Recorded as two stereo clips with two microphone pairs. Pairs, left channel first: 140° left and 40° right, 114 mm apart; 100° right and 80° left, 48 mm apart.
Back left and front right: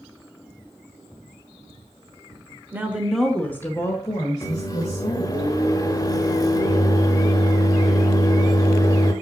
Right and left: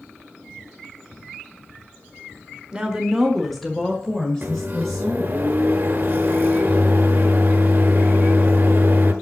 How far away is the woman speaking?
About 1.3 m.